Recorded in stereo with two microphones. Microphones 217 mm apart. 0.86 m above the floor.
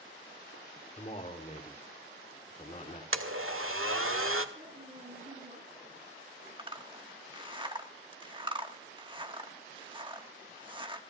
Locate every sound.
1.0 s a man speaking: 35° left (ahead or behind), 2.5 m
3.1 s a blender: 75° right (ahead or behind), 1.6 m
4.5 s a woman speaking: 35° right (ahead or behind), 8 m
6.6 s a zipper: 20° right (ahead or behind), 1.4 m